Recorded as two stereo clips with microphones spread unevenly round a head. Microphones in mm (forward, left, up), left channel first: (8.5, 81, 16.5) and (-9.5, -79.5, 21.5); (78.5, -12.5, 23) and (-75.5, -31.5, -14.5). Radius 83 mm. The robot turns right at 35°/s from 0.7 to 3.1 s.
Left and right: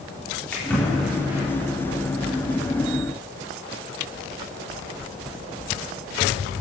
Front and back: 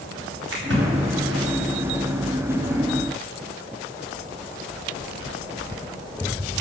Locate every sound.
0.5 s a splash: 165° left, 4 m; by 1.4 s 170° right, 4 m